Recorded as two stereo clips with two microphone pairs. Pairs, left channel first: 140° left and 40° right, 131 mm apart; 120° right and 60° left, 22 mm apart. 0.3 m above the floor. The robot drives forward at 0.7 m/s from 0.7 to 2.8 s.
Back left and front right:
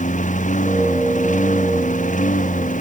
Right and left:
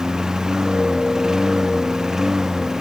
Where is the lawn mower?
125° left; by 2.8 s 130° left.